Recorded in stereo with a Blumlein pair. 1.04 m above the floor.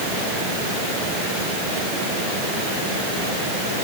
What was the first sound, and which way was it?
Only background noise.